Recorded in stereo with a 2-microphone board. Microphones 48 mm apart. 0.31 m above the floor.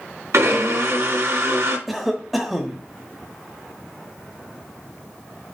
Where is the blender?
70° right (ahead or behind), 2.5 m.